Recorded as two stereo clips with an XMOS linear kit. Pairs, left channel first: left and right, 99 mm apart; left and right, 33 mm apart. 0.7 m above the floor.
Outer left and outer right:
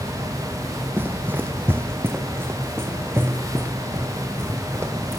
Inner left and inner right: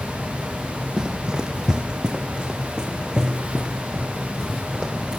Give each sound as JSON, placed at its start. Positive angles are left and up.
{"t": 1.0, "sound": "running footsteps", "side_deg": -20, "distance_m": 1.1}